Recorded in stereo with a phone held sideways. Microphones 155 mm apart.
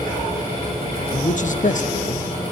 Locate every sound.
0.0 s a fan: 40° left (ahead or behind), 8 m
1.1 s a man speaking: 60° left (ahead or behind), 0.9 m